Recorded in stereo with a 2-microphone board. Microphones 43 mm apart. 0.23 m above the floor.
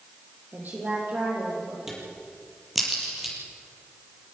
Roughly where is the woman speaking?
Right.